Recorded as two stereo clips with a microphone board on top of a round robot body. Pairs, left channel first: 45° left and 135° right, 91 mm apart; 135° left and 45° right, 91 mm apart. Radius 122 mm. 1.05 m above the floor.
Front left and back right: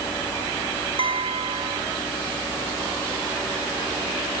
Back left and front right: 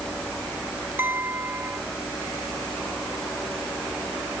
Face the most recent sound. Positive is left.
turn(degrees=-115)